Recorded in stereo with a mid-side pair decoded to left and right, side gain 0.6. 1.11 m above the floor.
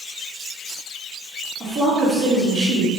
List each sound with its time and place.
1.6 s a woman speaking: 35° right, 1.8 m